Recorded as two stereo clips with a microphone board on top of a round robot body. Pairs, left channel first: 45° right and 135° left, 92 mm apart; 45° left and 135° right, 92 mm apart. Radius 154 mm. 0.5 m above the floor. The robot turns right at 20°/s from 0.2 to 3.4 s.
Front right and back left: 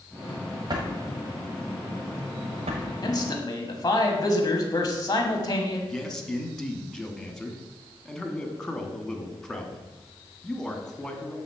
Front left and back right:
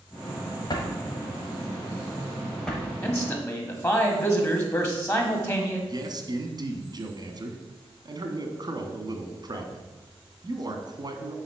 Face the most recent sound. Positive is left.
turn(degrees=-130)